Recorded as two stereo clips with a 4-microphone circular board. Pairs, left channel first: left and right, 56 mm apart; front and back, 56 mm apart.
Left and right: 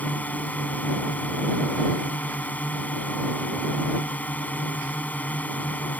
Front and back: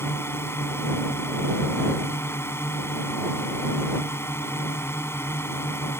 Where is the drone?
30° left.